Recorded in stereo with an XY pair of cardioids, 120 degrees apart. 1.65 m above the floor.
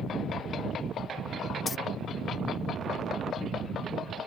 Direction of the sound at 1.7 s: 30° left.